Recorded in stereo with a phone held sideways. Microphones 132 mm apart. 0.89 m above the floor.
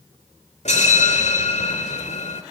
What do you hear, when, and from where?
0.7 s a bell: 60° left (ahead or behind), 2 m